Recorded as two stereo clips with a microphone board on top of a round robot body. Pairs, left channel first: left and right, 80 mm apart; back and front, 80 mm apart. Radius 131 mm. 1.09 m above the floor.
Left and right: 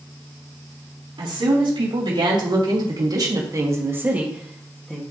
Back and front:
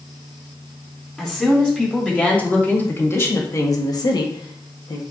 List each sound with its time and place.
1.2 s a woman speaking: 95° right, 3 m; by 5.0 s 165° left, 1.5 m